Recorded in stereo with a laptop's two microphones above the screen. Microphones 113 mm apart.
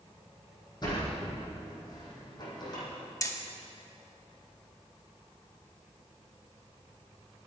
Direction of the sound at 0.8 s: 35° left (ahead or behind).